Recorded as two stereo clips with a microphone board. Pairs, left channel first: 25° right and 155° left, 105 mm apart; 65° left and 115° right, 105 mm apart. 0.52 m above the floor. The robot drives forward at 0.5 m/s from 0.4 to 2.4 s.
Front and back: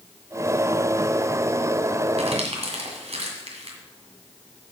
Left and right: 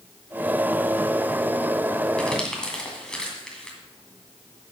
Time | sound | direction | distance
2.2 | crumpling | 150° left | 1.9 m